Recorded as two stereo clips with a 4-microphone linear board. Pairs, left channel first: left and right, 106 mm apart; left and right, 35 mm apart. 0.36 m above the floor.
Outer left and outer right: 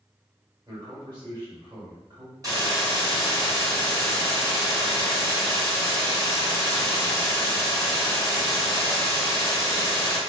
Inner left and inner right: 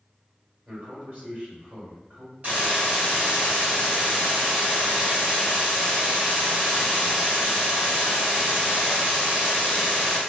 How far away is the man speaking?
About 1.9 m.